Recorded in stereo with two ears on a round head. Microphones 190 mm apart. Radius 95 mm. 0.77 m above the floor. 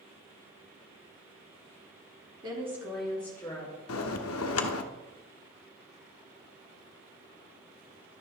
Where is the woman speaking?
20° right (ahead or behind), 1.9 m; by 3.7 s 15° left (ahead or behind), 3 m.